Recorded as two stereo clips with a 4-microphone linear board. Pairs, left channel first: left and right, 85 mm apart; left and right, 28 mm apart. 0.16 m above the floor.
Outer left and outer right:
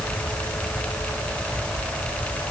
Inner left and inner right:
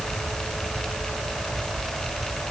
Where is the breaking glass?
No breaking glass in this recording.